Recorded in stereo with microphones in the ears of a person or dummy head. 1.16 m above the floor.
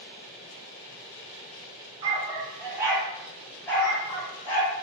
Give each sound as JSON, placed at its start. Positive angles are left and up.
{"t": 2.0, "sound": "a dog barking", "side_deg": -30, "distance_m": 1.3}